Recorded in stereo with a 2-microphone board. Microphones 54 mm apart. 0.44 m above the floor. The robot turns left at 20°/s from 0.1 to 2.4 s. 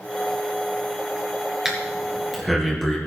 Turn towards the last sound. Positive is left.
turn(degrees=5)  # may be behind; listen again after turning